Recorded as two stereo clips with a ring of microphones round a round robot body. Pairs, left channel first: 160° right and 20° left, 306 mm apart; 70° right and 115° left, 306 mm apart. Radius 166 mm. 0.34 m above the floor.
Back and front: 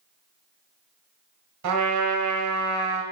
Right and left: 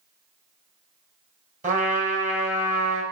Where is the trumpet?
50° left, 2.0 m.